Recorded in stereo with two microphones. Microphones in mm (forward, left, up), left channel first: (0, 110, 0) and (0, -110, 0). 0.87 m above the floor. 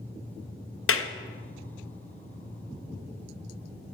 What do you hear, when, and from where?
0.9 s a clap: 80° left, 0.5 m